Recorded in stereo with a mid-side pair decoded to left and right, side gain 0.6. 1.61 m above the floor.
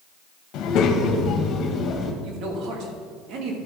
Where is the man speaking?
60° right, 2.5 m.